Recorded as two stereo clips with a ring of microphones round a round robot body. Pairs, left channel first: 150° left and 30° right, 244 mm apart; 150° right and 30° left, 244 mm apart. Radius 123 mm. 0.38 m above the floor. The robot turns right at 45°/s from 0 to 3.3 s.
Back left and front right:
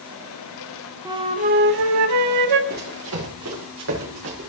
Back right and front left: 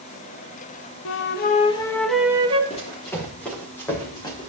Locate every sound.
1.1 s a flute: 110° right, 0.6 m; by 2.6 s 40° right, 0.6 m
2.7 s running footsteps: 85° right, 5 m; by 4.5 s 80° right, 3.5 m